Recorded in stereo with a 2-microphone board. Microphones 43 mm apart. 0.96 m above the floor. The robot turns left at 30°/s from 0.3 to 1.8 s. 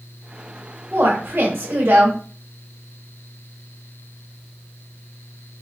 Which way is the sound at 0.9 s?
50° right (ahead or behind).